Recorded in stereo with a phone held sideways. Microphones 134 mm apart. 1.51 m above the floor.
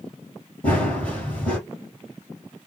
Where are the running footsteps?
10° left (ahead or behind), 1.5 m.